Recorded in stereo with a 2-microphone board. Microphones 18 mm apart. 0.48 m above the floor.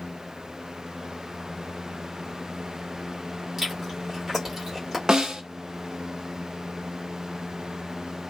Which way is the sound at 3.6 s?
25° right (ahead or behind).